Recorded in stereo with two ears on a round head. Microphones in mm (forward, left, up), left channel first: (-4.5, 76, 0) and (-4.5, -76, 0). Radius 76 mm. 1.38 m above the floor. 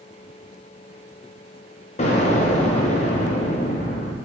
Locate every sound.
2.0 s an explosion: 40° left (ahead or behind), 0.6 m